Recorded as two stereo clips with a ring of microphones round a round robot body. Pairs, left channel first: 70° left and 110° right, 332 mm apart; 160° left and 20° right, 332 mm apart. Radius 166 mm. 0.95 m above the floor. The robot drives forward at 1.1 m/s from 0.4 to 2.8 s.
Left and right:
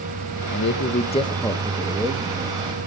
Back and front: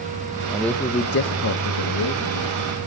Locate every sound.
0.5 s a man speaking: 55° left, 1.0 m; by 2.6 s 165° left, 2 m